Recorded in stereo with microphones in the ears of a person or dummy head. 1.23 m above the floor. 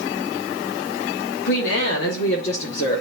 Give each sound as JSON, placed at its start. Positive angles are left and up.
{"t": 1.4, "sound": "a woman speaking", "side_deg": 60, "distance_m": 2.5}